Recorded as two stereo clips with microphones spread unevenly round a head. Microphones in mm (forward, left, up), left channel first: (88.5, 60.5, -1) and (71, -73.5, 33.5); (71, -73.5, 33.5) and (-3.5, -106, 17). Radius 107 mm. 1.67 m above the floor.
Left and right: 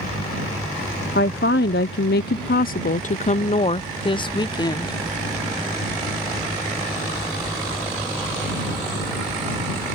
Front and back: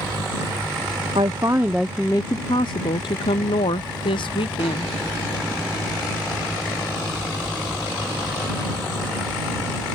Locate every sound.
1.1 s a woman speaking: 135° left; by 5.0 s 20° left